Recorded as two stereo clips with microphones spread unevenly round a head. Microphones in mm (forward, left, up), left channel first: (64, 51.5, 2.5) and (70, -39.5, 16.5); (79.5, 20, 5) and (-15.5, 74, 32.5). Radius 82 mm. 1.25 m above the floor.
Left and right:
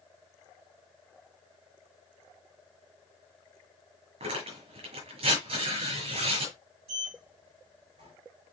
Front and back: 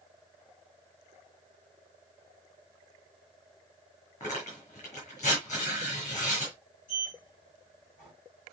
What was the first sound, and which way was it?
Tearing paper, 105° right.